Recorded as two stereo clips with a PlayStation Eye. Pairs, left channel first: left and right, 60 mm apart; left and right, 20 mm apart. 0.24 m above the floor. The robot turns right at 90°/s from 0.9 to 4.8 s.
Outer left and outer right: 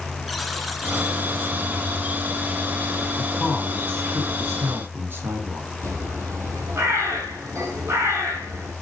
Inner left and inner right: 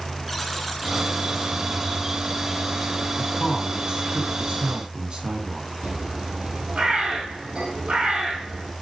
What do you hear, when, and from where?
0.3 s a buzzer: straight behind, 1.6 m; by 1.6 s 120° right, 1.6 m
3.2 s a man speaking: 165° left, 2.5 m; by 5.7 s 50° right, 2.5 m
5.8 s a bird: 60° right (ahead or behind), 3 m